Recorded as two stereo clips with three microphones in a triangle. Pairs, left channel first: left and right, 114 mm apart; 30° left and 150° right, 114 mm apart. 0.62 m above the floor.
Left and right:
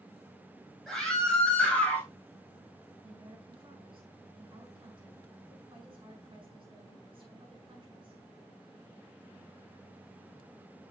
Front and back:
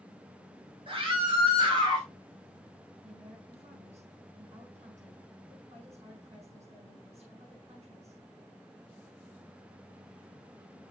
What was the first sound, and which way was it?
A scream, 175° left.